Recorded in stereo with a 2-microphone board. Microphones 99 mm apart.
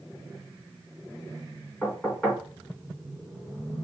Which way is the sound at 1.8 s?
10° left (ahead or behind).